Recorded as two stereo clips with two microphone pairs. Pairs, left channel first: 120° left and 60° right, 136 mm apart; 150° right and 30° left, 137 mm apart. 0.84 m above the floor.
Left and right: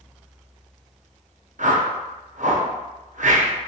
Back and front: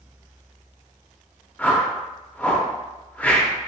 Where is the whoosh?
75° right, 0.5 m.